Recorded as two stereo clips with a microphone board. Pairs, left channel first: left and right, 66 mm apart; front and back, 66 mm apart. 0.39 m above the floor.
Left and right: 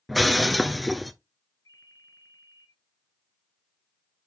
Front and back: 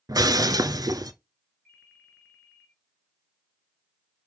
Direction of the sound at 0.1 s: Straight behind.